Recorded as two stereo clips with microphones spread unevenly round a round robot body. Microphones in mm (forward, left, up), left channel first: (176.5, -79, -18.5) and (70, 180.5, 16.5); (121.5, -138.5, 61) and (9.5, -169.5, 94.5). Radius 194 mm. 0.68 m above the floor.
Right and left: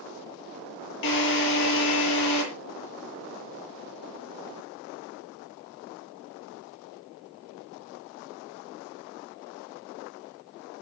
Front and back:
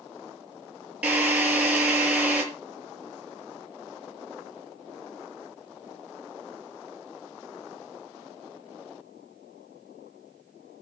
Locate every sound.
1.0 s a drill: 85° right, 7 m